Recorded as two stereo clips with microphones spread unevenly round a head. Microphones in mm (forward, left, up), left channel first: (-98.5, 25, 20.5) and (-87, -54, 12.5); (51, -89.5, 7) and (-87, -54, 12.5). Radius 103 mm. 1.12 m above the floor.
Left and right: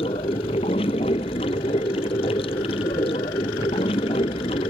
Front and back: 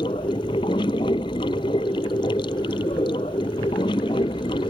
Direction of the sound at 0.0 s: 55° left.